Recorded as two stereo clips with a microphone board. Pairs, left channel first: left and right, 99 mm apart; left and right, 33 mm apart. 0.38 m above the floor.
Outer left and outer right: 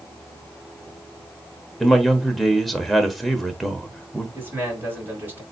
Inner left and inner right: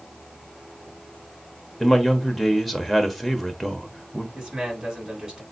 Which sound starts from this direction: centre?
A man speaking, at 1.8 s.